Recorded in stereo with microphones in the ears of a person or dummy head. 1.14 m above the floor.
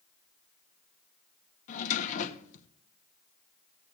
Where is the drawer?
45° left (ahead or behind), 0.9 m.